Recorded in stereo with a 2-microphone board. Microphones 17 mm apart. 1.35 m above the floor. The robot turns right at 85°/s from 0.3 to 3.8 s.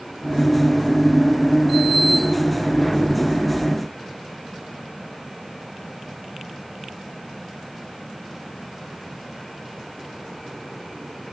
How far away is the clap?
I don't hear a clap.